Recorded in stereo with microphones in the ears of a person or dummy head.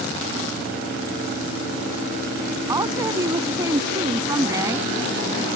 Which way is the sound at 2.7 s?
15° right (ahead or behind).